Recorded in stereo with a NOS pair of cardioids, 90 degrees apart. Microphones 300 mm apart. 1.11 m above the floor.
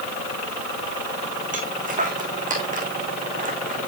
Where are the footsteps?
25° right, 4 m.